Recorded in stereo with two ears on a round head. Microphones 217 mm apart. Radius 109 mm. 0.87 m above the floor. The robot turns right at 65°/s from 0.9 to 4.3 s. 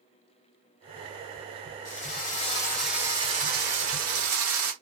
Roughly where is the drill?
Behind left.